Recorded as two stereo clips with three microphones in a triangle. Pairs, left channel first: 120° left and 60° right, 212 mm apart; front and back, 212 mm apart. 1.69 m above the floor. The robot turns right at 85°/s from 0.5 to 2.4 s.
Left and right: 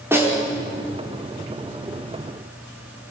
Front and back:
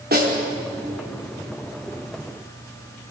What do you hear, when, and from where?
0.1 s a snare drum: 140° right, 5 m